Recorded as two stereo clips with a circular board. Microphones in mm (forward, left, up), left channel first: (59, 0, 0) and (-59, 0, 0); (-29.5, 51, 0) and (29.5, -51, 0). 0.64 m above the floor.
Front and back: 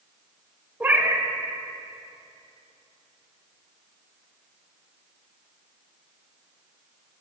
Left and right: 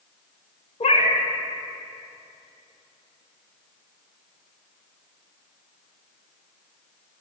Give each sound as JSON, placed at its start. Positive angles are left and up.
{"t": 0.8, "sound": "a cat meowing", "azimuth_deg": 105, "distance_m": 0.6}